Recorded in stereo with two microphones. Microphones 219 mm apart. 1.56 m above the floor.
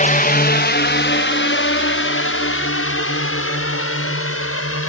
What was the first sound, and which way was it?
A drone, 35° left (ahead or behind).